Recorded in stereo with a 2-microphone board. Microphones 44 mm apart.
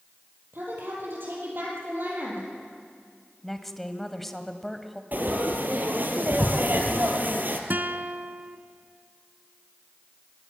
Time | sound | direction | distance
0.5 | a woman speaking | 50° right (ahead or behind) | 8 m
3.4 | a woman speaking | 5° left (ahead or behind) | 1.5 m
5.1 | frying | 45° right (ahead or behind) | 2 m
7.7 | a guitar | 50° right (ahead or behind) | 0.8 m